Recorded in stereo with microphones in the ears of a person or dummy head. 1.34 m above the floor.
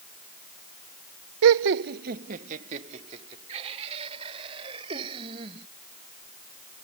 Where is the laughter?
75° right (ahead or behind); by 5.7 s 30° right (ahead or behind).